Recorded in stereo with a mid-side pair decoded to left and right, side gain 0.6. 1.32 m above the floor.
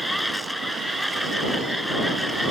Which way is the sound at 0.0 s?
Straight ahead.